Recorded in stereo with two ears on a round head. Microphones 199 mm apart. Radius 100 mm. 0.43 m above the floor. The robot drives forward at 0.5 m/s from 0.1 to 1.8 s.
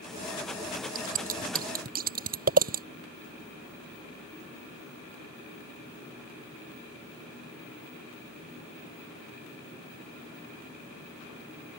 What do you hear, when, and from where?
0.9 s scissors: 40° right (ahead or behind)